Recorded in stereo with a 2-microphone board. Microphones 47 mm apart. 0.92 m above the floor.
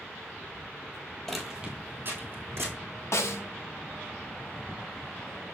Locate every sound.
1.3 s footsteps: 5° left (ahead or behind), 1.1 m; by 2.7 s 60° right (ahead or behind), 2.5 m
3.1 s a snare drum: 65° left (ahead or behind), 0.6 m